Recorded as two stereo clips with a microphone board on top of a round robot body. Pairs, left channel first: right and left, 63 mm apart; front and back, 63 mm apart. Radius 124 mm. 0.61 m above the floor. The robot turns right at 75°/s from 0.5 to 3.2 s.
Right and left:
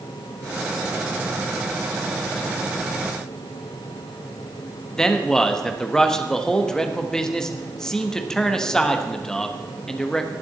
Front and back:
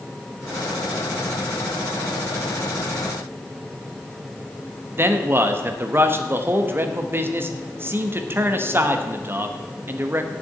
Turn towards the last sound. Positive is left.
turn(degrees=-165)